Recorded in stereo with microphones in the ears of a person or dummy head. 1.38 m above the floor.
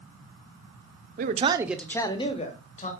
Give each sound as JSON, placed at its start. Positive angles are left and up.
{"t": 1.2, "sound": "a man speaking", "side_deg": -45, "distance_m": 0.5}